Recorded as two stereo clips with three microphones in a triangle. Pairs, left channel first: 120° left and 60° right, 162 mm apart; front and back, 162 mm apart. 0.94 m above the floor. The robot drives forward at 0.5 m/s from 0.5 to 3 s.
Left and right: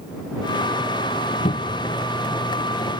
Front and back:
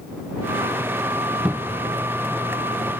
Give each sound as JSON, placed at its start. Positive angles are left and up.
{"t": 1.4, "sound": "a cupboard door", "azimuth_deg": 100}